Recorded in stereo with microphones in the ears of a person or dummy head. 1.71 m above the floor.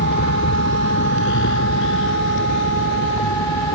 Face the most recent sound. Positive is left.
turn(degrees=70)  # may be behind; listen again after turning